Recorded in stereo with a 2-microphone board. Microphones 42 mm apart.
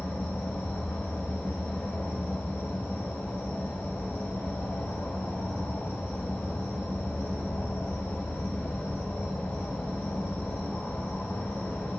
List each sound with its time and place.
0.0 s an insect: 55° left (ahead or behind), 2 m